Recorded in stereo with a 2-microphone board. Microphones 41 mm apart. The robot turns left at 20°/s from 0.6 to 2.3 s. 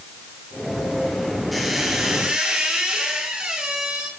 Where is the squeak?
Centre (ahead or behind), 7.5 m; by 4.1 s 15° right (ahead or behind), 7.5 m.